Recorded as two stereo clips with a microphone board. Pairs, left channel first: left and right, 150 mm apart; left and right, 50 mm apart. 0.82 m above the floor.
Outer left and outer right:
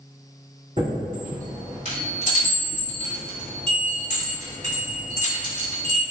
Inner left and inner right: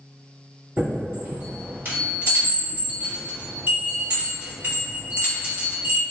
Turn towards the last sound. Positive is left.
turn(degrees=-45)  # may be behind; listen again after turning